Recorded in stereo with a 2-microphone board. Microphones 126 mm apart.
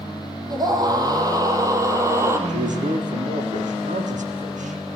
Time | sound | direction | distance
0.5 | a scream | 30° right (ahead or behind) | 4 m
2.5 | a man speaking | 80° right | 6.5 m